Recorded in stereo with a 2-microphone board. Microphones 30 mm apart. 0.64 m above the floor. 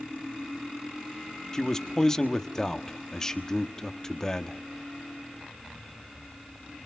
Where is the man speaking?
15° left (ahead or behind), 1.3 m.